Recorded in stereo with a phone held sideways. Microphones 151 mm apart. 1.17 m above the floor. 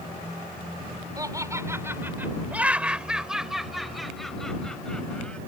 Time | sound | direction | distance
1.2 | laughter | 25° right (ahead or behind) | ?